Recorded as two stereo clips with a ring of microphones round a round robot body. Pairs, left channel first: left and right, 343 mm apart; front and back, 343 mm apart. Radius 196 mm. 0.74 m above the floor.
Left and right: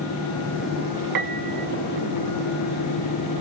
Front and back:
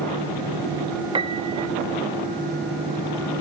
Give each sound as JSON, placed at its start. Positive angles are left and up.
{"t": 1.1, "sound": "a piano", "azimuth_deg": -105, "distance_m": 1.4}